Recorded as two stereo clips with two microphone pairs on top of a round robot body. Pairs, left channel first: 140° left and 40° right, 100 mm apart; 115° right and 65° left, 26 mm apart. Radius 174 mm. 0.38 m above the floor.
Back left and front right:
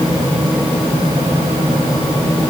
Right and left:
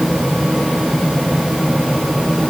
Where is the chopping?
No chopping in this recording.